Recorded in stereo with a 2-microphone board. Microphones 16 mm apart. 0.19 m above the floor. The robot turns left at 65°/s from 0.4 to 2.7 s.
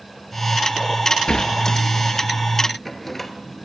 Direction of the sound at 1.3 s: 70° left (ahead or behind).